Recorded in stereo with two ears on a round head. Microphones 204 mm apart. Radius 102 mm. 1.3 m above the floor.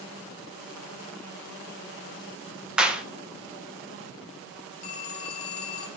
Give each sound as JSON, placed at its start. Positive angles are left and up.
{"t": 2.8, "sound": "a clap", "side_deg": -5, "distance_m": 0.8}
{"t": 4.8, "sound": "a phone ringing", "side_deg": 40, "distance_m": 3.5}